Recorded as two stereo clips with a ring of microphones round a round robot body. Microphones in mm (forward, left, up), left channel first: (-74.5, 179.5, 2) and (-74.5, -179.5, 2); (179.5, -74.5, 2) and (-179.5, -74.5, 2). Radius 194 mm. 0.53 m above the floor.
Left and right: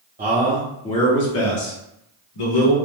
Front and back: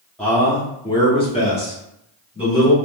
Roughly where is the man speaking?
Right.